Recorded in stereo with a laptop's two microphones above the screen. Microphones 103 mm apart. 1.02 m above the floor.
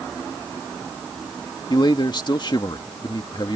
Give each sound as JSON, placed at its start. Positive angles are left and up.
{"t": 1.7, "sound": "a man speaking", "side_deg": 45}